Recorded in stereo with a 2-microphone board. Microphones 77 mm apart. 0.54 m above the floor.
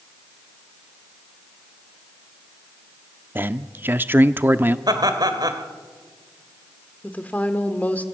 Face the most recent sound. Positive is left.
turn(degrees=20)  # may be behind; listen again after turning